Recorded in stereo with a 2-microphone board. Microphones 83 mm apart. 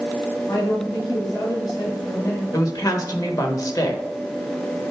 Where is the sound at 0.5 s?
50° left (ahead or behind), 3.5 m.